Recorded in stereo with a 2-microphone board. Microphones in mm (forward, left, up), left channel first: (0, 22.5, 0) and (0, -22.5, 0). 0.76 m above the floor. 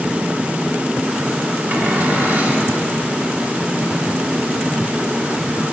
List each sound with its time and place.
1.7 s a cupboard door: 40° right (ahead or behind), 1.2 m